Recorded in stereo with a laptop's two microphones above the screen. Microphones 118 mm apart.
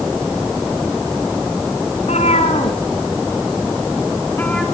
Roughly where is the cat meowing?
Left.